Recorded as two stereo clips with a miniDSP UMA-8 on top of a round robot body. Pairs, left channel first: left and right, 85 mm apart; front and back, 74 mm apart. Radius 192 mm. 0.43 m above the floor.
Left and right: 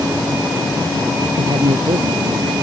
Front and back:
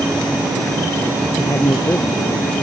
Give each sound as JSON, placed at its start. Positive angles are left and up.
{"t": 1.4, "sound": "a man speaking", "azimuth_deg": -55}